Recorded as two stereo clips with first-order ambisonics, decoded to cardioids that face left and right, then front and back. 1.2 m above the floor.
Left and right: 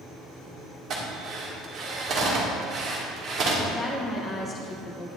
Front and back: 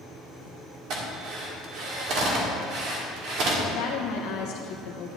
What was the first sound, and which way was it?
A drill, 145° right.